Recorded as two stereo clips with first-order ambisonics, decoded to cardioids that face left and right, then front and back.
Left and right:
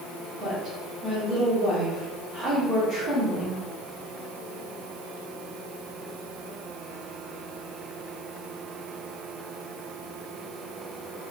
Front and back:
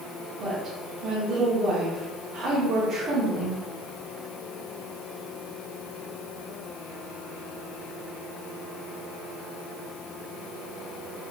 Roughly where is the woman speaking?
Behind right.